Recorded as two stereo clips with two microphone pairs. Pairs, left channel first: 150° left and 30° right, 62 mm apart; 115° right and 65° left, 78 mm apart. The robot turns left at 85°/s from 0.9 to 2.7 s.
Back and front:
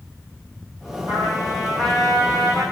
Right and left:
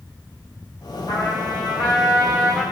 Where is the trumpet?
70° right, 4.5 m; by 2.6 s 160° left, 4.5 m.